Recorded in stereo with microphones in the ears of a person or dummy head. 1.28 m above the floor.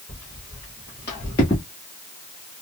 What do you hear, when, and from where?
0.1 s footsteps: 25° left (ahead or behind), 2.5 m; by 1.6 s 10° left (ahead or behind), 1.3 m